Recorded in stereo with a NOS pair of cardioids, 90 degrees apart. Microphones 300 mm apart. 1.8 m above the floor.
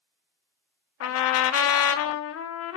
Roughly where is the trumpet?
Ahead left.